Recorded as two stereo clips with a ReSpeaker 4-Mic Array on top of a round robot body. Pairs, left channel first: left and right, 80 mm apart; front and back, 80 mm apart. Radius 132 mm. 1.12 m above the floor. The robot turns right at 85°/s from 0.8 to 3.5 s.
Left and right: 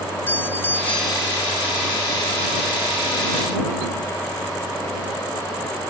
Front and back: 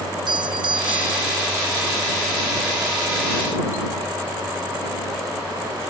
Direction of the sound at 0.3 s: 160° left.